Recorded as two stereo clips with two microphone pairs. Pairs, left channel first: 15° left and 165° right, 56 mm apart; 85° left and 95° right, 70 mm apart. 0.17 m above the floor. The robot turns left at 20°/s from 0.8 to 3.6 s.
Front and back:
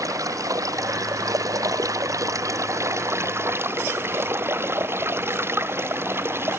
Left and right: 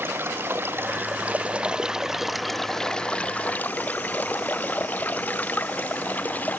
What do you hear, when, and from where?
0.0 s running water: 155° right; by 6.6 s 150° left